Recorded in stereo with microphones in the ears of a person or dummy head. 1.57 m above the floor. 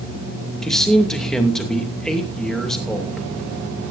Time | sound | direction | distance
0.6 | a man speaking | 5° left (ahead or behind) | 2.5 m